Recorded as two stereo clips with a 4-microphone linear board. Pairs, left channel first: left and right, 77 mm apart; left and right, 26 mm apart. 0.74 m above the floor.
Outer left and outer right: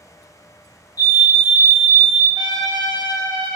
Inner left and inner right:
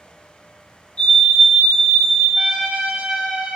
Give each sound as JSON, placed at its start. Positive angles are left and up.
{"t": 1.0, "sound": "a fire alarm", "side_deg": 55, "distance_m": 3.0}
{"t": 2.4, "sound": "a trumpet", "side_deg": -70, "distance_m": 1.2}